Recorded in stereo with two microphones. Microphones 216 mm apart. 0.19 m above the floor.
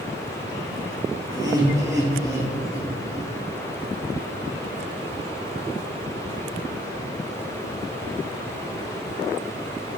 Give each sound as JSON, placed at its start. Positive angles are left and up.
{"t": 1.3, "sound": "laughter", "side_deg": -20, "distance_m": 3.0}